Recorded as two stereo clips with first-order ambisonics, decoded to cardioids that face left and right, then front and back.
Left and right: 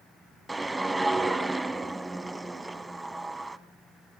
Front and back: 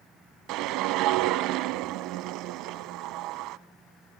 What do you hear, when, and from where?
0.5 s a whoosh: 175° right, 0.9 m